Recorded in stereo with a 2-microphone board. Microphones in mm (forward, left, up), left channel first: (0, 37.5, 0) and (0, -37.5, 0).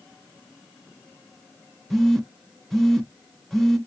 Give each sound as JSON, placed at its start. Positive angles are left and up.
{"t": 1.9, "sound": "a phone buzzing", "side_deg": 0, "distance_m": 0.6}